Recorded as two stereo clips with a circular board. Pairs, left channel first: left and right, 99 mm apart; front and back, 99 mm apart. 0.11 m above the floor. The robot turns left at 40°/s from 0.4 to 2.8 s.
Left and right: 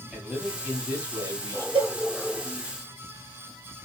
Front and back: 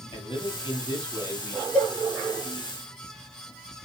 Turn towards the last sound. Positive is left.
turn(degrees=-120)